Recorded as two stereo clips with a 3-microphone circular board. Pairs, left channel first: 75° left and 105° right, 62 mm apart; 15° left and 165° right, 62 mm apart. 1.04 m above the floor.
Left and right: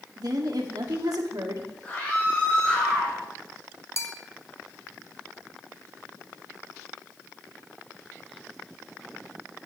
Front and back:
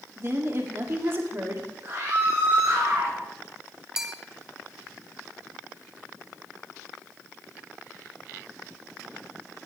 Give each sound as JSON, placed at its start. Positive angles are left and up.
{"t": 0.2, "sound": "a woman speaking", "azimuth_deg": -115, "distance_m": 2.5}
{"t": 1.8, "sound": "a scream", "azimuth_deg": 145, "distance_m": 5.0}
{"t": 4.0, "sound": "a bell", "azimuth_deg": 115, "distance_m": 1.2}